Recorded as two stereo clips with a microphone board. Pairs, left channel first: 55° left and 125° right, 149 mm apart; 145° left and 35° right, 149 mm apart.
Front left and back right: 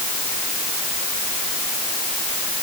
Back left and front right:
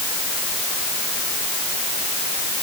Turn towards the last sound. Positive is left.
No sound to turn to.